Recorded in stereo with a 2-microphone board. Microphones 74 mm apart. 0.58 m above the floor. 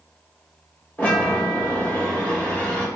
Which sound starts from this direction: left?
A chime, at 1.0 s.